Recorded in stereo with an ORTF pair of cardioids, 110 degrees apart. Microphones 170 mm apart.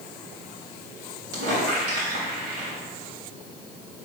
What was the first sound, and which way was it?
A squeak, 70° right.